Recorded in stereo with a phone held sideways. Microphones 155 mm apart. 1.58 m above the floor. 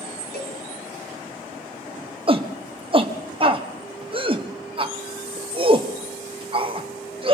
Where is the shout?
35° right (ahead or behind), 0.9 m.